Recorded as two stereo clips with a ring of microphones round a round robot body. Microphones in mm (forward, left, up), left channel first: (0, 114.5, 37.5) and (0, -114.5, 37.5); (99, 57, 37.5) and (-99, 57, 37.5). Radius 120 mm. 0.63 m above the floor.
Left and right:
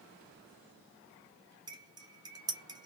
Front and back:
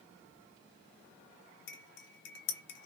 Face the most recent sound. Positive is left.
turn(degrees=-20)